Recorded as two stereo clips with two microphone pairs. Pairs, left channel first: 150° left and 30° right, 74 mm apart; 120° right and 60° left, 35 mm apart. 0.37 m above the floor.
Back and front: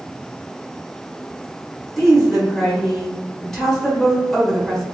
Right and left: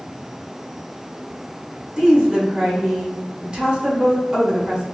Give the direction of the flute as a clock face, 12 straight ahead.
No flute in this recording.